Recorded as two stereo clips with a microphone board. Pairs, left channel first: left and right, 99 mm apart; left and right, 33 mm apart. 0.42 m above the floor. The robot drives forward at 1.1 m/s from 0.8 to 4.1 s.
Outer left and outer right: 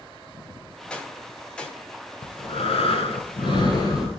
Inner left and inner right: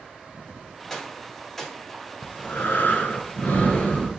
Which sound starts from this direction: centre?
A gunshot, at 0.9 s.